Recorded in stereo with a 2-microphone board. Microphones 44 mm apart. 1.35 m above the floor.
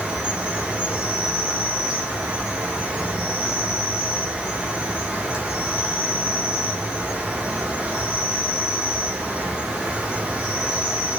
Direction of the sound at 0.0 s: 20° right (ahead or behind).